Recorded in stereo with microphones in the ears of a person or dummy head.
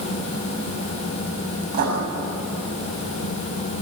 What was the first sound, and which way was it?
Writing, 50° right (ahead or behind).